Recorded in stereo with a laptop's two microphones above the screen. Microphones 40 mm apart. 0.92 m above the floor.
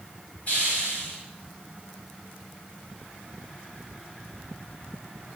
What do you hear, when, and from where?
0.5 s a hiss: 40° left (ahead or behind), 2.5 m